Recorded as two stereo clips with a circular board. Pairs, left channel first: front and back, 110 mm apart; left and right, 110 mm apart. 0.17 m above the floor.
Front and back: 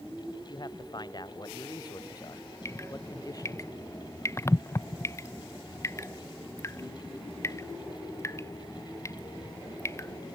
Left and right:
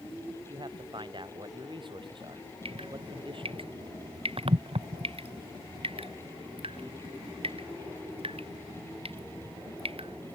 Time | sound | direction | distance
0.5 | a man speaking | 50° right | ?
2.6 | dripping | 65° right | ?